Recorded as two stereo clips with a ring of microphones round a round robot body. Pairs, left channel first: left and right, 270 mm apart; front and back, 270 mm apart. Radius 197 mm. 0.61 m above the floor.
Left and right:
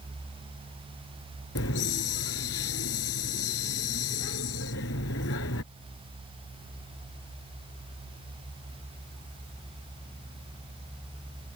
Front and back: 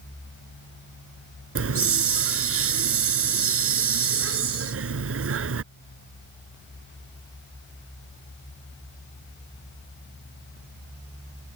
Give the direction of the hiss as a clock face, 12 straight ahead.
7 o'clock.